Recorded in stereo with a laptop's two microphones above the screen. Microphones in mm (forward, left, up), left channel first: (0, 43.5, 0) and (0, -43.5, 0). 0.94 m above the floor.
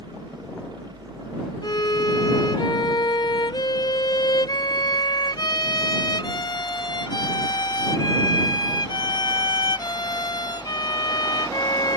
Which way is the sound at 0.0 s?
70° right (ahead or behind).